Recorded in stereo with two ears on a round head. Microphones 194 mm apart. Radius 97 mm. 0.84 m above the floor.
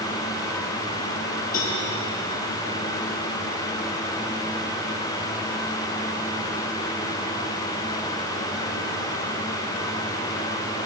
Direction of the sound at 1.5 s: 40° left (ahead or behind).